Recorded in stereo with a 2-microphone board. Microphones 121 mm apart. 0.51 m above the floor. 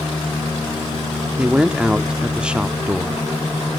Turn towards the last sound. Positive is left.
turn(degrees=-10)  # may be behind; listen again after turning